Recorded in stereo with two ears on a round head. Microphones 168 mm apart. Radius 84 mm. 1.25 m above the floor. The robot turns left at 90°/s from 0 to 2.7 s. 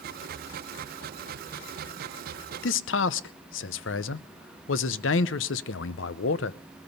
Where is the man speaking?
70° left (ahead or behind), 0.7 m.